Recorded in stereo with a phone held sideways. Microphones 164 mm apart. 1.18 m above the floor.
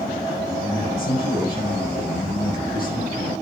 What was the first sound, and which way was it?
A man speaking, 65° left (ahead or behind).